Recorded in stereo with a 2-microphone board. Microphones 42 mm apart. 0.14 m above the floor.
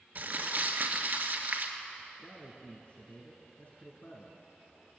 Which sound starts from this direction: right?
Crumpling, at 0.1 s.